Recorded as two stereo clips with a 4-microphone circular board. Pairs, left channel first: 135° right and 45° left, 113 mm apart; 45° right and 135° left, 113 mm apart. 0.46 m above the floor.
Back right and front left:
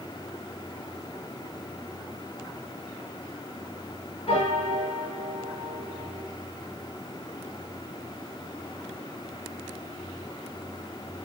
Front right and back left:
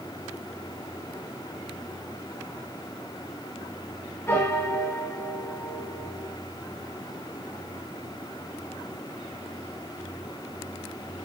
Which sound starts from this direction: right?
A piano, at 4.3 s.